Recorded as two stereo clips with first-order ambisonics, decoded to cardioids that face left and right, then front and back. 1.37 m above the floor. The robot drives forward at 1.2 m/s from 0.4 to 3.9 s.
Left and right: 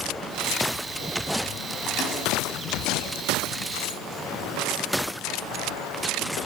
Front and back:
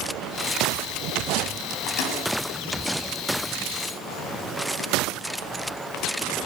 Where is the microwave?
30° left, 8 m.